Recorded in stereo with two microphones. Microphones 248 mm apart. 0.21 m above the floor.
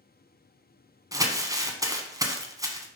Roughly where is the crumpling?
Centre.